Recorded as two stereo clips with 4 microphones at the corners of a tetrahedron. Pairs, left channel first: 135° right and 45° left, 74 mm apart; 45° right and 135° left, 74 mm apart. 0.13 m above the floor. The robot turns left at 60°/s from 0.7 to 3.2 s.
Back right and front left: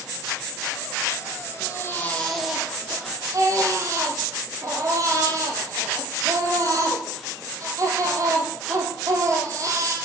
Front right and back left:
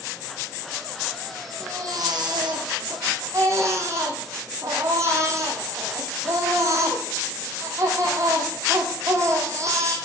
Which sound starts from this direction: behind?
A baby crying, at 1.6 s.